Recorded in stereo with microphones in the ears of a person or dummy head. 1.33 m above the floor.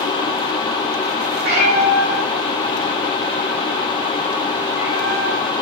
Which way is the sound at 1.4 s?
55° right (ahead or behind).